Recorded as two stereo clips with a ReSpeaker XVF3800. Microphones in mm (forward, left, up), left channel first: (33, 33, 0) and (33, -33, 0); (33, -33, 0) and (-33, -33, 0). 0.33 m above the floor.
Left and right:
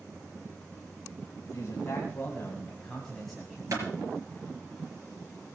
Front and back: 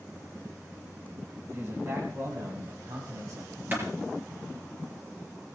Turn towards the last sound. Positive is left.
turn(degrees=-125)